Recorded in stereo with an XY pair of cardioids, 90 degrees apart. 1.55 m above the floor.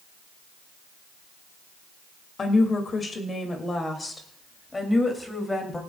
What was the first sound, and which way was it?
A woman speaking, 45° left.